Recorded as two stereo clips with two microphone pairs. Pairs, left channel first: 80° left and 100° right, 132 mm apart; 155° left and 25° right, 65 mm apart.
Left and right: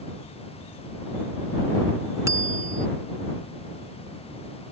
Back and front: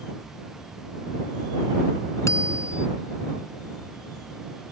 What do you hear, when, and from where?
2.3 s a bicycle bell: 165° right